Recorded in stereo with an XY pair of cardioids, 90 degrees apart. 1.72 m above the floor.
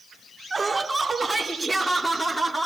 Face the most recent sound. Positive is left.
turn(degrees=5)